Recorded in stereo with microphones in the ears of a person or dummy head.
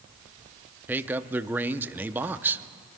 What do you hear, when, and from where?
0.9 s a man speaking: 5° right (ahead or behind), 0.6 m